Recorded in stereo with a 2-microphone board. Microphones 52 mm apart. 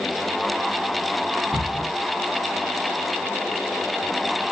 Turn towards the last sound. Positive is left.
turn(degrees=-40)  # may be behind; listen again after turning